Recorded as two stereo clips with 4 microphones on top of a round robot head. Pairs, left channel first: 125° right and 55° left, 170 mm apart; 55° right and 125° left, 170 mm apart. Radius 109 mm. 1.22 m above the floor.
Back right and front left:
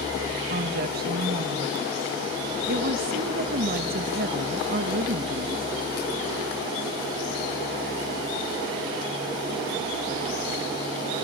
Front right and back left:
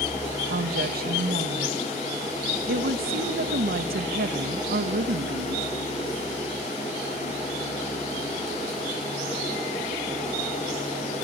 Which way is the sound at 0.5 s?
90° left.